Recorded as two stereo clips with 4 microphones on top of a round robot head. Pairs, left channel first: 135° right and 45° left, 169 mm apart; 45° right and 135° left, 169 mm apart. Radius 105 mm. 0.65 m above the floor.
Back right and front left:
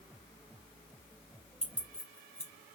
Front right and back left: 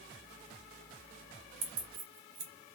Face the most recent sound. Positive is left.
turn(degrees=145)